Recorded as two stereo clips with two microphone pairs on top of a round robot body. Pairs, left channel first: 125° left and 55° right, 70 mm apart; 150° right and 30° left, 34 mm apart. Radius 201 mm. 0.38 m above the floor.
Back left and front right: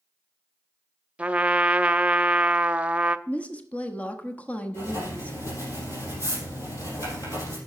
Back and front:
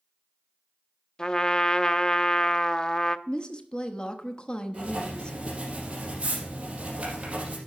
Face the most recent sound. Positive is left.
turn(degrees=90)